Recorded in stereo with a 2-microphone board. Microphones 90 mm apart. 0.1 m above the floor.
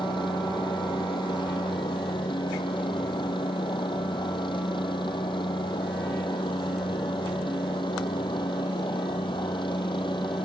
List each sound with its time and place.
0.0 s a helicopter: 65° left (ahead or behind)